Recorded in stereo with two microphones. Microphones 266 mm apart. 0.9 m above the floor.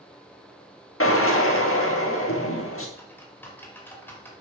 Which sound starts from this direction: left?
A drill, at 1.0 s.